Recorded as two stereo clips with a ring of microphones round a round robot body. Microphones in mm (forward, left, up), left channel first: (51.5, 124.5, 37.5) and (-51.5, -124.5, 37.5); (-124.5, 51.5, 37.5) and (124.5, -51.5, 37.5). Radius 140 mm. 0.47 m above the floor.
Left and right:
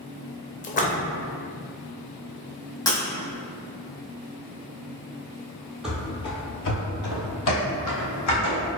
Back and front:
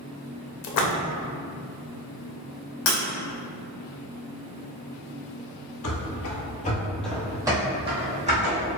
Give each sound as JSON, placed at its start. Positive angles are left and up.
{"t": 0.6, "sound": "a splash", "azimuth_deg": 130, "distance_m": 0.6}
{"t": 2.9, "sound": "breaking glass", "azimuth_deg": 145, "distance_m": 1.1}
{"t": 5.8, "sound": "running footsteps", "azimuth_deg": 160, "distance_m": 0.9}